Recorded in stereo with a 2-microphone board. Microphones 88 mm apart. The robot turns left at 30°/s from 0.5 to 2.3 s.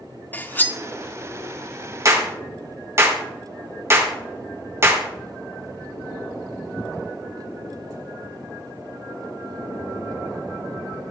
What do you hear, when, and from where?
0.3 s cutlery clinking: 20° left (ahead or behind), 0.6 m
2.0 s a clap: 35° right (ahead or behind), 1.5 m; by 5.1 s 30° right (ahead or behind), 1.5 m